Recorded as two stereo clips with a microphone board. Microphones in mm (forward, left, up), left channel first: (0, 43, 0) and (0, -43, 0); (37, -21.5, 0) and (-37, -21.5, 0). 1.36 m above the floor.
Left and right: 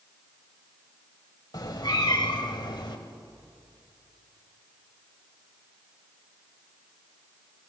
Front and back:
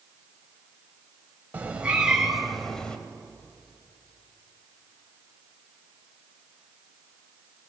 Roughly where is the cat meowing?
Behind left.